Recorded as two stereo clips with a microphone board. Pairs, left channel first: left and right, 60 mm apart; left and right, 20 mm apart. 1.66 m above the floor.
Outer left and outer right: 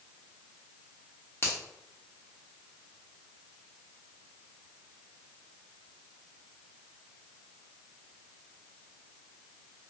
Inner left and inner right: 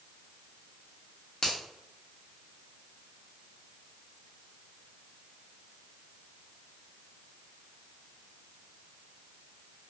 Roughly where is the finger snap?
Left.